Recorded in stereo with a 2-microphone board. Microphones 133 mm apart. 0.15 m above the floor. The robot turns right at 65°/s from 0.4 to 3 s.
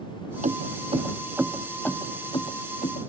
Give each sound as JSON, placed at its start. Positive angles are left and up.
{"t": 0.4, "sound": "keys jangling", "side_deg": -75}